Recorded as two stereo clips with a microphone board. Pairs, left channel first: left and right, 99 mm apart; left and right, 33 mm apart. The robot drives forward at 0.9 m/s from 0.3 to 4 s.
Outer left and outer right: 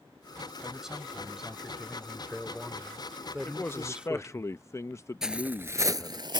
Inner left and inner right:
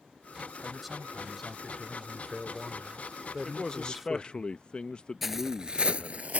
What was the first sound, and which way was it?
A man speaking, 5° right (ahead or behind).